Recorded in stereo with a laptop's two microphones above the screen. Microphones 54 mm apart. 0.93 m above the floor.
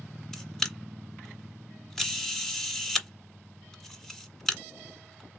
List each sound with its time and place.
0.3 s a camera shutter: 5° left (ahead or behind), 1.5 m